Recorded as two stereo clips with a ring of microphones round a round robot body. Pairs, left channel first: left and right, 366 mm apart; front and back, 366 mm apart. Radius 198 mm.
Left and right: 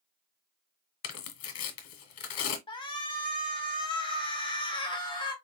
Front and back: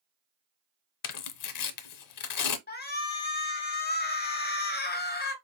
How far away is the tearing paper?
About 0.8 m.